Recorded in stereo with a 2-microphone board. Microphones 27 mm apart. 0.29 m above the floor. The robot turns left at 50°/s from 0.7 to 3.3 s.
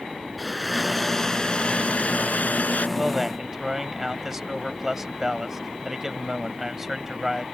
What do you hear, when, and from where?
0.4 s a blender: 175° right; by 2.9 s 75° left
3.0 s a man speaking: 10° right (ahead or behind); by 7.4 s 20° right (ahead or behind)